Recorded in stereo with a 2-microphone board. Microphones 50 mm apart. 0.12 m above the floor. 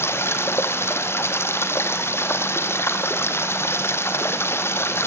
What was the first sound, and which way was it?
Running water, 55° left (ahead or behind).